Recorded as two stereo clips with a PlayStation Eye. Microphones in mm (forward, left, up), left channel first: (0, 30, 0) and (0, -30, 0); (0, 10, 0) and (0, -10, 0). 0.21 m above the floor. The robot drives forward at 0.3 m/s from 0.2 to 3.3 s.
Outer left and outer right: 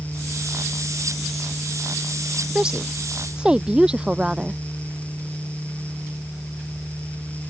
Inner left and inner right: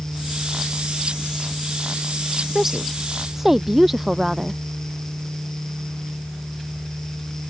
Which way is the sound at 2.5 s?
15° right (ahead or behind).